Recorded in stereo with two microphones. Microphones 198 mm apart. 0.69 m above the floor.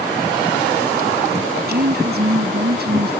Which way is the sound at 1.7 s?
55° right (ahead or behind).